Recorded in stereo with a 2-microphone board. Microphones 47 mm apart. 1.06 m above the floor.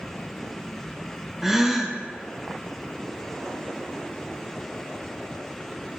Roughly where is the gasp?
Centre.